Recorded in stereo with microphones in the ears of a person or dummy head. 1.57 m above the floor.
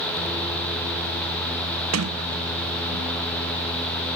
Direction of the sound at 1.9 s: 85° right.